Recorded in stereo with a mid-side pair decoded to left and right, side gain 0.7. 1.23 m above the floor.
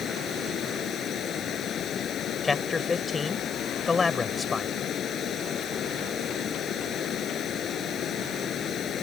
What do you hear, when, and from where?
0.0 s running water: 40° left
2.4 s a man speaking: 20° left